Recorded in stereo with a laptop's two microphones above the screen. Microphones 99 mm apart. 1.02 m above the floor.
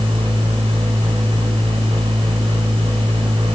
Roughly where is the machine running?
Right.